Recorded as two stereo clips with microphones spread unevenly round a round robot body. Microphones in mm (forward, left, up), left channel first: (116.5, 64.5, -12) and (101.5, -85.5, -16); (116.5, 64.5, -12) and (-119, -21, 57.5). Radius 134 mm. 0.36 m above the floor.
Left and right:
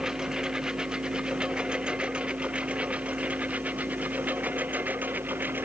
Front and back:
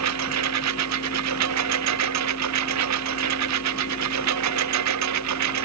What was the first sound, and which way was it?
A lawn mower, 175° left.